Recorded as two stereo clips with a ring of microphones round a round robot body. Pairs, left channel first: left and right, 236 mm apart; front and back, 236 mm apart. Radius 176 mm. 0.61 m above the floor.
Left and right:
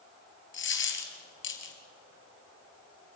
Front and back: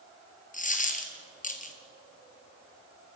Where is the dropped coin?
55° left, 3 m.